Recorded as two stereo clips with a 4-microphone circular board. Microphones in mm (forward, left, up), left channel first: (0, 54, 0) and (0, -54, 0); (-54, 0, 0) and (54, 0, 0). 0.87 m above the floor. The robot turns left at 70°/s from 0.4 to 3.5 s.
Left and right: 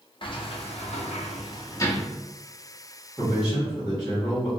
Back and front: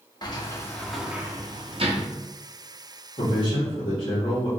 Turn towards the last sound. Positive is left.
turn(degrees=160)